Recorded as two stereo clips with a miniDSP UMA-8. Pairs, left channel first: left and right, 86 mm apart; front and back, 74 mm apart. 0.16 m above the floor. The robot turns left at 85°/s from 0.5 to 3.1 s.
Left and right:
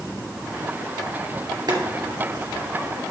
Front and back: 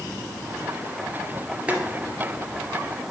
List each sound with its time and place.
1.7 s boiling: 110° right, 1.9 m; by 1.8 s 120° right, 1.9 m